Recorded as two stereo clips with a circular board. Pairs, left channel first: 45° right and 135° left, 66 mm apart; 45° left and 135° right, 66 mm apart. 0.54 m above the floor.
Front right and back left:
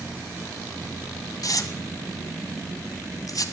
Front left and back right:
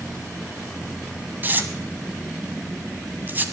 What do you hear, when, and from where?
1.4 s tearing paper: 75° right, 1.1 m